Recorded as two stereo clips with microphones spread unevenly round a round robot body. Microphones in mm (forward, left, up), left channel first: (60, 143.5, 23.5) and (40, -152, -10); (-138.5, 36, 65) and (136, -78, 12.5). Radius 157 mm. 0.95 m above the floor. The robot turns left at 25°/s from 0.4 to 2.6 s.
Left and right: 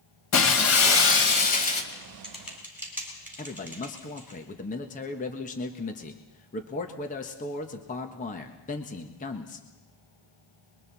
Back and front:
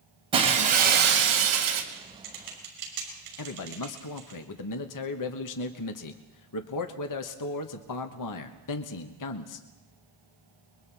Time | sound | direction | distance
0.3 | breaking glass | 55° left | 2.5 m
1.9 | typing on a keyboard | 5° left | 6 m
3.4 | a man speaking | 150° left | 1.4 m